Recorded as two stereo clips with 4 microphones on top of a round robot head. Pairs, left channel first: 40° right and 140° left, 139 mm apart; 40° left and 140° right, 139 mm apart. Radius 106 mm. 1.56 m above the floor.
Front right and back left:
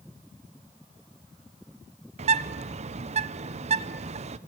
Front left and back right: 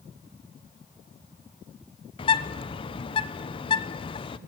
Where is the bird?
95° left, 0.9 m.